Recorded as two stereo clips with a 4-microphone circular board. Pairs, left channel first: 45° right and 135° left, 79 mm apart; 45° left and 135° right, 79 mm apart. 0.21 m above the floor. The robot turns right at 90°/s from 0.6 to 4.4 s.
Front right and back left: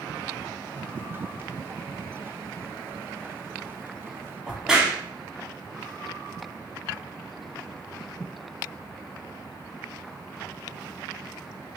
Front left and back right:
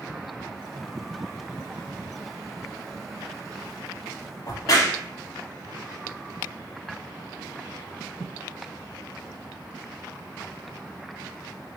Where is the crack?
55° left, 0.9 m.